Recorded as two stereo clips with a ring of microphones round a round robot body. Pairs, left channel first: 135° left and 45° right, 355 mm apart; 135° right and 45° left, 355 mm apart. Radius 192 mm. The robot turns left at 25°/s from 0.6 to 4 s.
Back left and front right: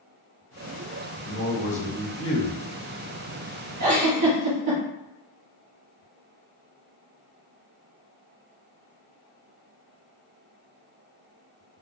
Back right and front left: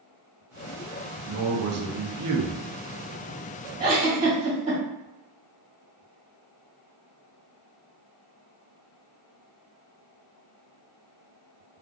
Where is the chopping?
No chopping in this recording.